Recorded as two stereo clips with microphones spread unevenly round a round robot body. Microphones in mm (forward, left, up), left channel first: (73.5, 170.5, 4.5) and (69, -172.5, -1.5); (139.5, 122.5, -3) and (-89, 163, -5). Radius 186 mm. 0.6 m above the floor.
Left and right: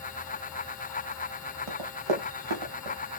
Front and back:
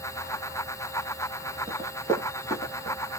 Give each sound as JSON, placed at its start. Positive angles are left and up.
{"t": 1.7, "sound": "running footsteps", "azimuth_deg": -110, "distance_m": 3.5}